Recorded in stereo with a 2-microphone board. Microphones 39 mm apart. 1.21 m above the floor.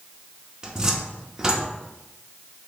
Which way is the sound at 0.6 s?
20° right (ahead or behind).